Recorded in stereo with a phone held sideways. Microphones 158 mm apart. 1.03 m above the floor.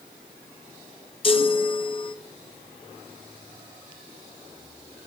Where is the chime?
35° left (ahead or behind), 0.6 m.